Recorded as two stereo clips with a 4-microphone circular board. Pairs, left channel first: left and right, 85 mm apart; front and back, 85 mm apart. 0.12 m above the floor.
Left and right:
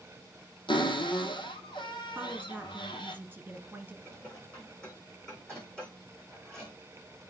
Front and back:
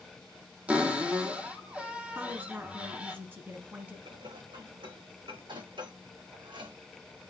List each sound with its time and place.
0.7 s a cupboard door: 110° left, 1.5 m
2.1 s a woman speaking: 135° right, 1.6 m
4.0 s dishes clattering: 170° left, 5.5 m